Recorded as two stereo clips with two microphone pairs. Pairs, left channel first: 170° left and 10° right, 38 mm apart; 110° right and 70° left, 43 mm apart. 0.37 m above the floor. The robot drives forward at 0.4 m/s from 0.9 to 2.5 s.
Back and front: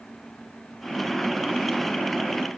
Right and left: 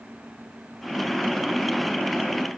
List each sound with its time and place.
Only background noise.